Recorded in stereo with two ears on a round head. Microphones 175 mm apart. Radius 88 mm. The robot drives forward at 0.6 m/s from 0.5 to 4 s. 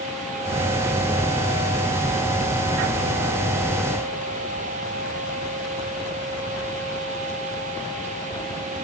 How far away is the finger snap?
No finger snap in this recording.